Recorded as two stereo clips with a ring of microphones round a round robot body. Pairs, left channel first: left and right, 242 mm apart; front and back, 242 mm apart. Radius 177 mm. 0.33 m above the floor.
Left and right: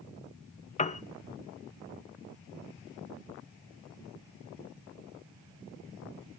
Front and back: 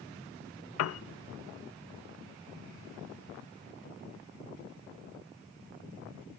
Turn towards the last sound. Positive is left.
turn(degrees=25)